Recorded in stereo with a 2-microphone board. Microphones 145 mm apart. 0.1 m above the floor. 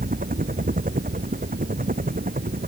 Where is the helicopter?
70° right (ahead or behind); by 2.7 s 75° right (ahead or behind).